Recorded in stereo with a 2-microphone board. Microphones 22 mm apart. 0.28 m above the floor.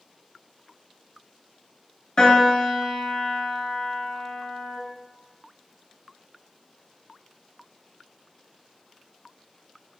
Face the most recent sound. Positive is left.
turn(degrees=40)  # may be behind; listen again after turning